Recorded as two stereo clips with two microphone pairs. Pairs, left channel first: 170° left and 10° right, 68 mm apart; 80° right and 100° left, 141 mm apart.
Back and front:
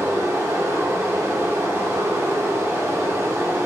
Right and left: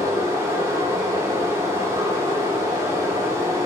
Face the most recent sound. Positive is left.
turn(degrees=30)